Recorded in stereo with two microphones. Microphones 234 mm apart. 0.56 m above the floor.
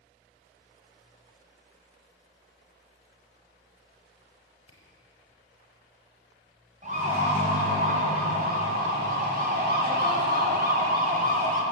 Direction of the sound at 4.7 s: 85° left.